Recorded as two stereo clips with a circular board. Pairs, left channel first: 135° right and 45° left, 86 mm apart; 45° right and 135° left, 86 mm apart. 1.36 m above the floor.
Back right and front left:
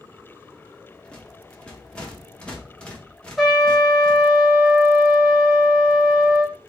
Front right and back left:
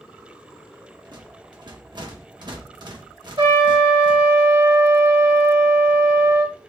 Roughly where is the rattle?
Behind left.